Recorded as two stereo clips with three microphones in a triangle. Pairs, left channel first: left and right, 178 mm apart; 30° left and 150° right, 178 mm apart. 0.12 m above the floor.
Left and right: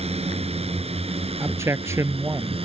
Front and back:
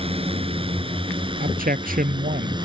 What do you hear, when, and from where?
0.0 s a drone: 115° right; by 2.7 s 110° right
1.4 s a man speaking: 160° right